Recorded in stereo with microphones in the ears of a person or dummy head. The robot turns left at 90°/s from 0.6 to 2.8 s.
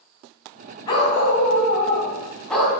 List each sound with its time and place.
0.9 s a dog barking: 155° left, 2 m; by 2.8 s 20° right, 2 m